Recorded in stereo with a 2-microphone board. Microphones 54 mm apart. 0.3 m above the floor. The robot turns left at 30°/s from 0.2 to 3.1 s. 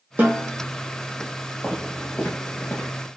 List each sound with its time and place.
0.2 s a snare drum: 35° right (ahead or behind), 2.5 m; by 0.5 s 25° right (ahead or behind), 2.5 m
1.6 s footsteps: 10° left (ahead or behind), 2.5 m; by 2.9 s 50° left (ahead or behind), 1.9 m